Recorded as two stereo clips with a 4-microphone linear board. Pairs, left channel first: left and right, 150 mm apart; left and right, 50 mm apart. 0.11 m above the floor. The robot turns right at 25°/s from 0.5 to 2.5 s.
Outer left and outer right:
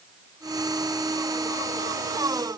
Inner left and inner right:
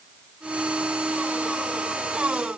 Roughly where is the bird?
I don't hear a bird.